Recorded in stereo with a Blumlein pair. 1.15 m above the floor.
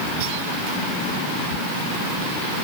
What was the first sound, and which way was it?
Only background noise.